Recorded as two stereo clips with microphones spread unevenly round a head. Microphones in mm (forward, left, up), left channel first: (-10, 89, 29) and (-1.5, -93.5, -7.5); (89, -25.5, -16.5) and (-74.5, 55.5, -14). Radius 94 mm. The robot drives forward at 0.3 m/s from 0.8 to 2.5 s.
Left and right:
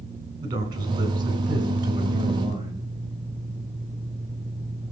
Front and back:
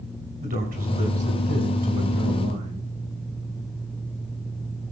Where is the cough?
No cough in this recording.